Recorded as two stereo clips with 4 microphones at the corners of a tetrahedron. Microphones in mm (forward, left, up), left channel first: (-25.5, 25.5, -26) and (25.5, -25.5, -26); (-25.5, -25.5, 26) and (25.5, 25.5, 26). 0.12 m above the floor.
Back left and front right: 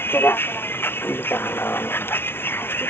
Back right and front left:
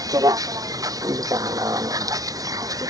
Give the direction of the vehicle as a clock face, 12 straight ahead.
9 o'clock.